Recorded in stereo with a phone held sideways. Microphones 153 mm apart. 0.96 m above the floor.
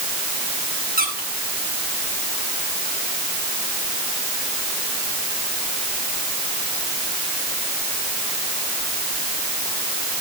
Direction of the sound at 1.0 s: 80° right.